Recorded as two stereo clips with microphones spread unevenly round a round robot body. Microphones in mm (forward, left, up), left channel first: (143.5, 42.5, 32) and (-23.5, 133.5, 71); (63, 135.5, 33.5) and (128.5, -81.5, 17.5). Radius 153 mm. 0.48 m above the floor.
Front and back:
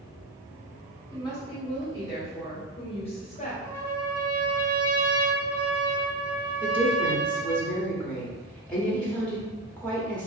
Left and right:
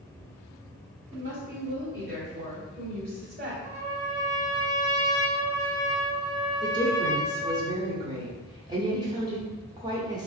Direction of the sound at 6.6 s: 60° right.